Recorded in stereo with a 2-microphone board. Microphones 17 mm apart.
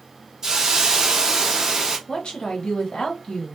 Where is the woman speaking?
85° left, 1.1 m.